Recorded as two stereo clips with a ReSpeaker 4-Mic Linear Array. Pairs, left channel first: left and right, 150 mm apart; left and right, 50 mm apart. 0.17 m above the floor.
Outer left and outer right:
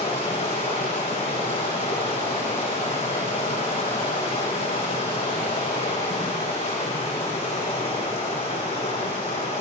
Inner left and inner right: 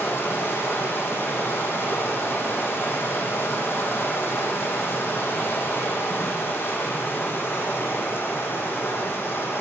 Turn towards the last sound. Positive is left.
turn(degrees=45)  # may be behind; listen again after turning